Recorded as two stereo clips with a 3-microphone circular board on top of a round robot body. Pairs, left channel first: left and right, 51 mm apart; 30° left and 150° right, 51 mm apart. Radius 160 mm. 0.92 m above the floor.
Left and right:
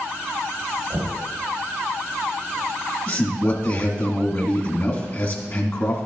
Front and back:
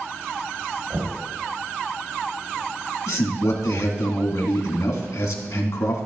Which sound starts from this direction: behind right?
Knocking, at 0.9 s.